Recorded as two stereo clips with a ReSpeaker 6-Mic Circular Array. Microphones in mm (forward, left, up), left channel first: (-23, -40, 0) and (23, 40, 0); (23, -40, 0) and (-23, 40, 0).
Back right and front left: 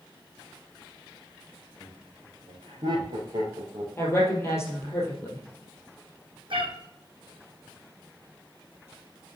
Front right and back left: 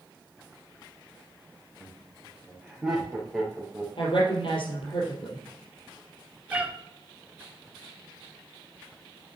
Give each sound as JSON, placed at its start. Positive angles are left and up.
{"t": 1.8, "sound": "laughter", "azimuth_deg": 50, "distance_m": 3.0}
{"t": 4.0, "sound": "a woman speaking", "azimuth_deg": -60, "distance_m": 3.0}
{"t": 6.5, "sound": "a cat meowing", "azimuth_deg": 45, "distance_m": 1.9}